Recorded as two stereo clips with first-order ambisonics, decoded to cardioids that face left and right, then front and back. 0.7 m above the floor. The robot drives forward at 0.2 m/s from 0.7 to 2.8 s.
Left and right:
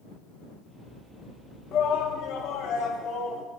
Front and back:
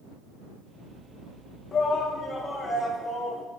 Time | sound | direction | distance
1.7 | a shout | 65° left | 0.8 m